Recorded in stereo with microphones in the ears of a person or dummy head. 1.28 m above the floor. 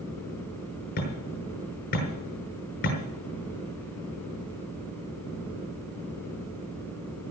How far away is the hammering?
About 5.5 m.